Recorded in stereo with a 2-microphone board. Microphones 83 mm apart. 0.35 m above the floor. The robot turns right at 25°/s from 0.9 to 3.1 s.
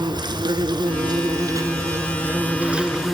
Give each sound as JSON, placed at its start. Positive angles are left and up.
{"t": 0.0, "sound": "an insect", "azimuth_deg": -60, "distance_m": 1.4}